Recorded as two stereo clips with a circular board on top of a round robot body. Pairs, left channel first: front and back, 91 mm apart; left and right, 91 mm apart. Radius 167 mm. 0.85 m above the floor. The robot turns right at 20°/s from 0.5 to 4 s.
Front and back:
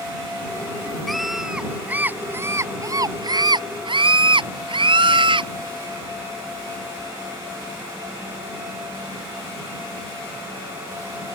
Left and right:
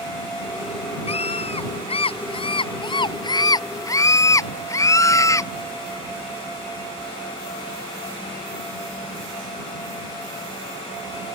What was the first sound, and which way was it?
A scream, 90° left.